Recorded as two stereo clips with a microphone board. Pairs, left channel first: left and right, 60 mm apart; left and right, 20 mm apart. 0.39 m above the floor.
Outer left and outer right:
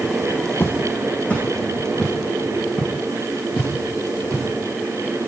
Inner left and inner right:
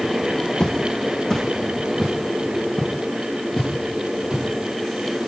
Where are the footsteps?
35° left (ahead or behind), 0.7 m; by 4.4 s 5° left (ahead or behind), 3 m.